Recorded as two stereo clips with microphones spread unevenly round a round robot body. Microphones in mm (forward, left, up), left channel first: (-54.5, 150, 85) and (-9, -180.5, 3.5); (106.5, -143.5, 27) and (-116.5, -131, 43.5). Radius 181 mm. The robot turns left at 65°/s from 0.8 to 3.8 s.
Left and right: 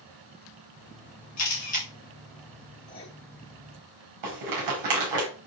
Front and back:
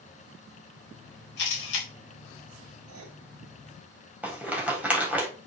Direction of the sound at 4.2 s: 100° right.